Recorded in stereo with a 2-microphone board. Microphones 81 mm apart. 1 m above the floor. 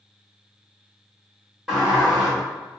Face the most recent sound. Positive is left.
turn(degrees=-5)  # may be behind; listen again after turning